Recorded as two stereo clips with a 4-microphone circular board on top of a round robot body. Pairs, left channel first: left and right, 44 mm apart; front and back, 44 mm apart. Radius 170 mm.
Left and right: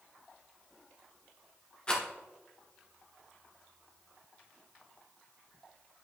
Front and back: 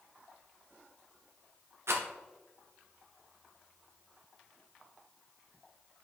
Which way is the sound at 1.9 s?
160° left.